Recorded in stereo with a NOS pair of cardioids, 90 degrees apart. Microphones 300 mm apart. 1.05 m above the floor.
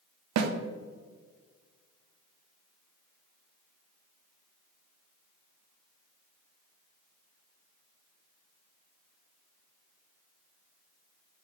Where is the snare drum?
65° right, 0.9 m.